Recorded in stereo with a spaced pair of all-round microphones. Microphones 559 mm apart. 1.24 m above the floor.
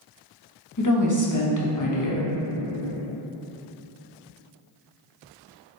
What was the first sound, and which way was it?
A woman speaking, 35° left (ahead or behind).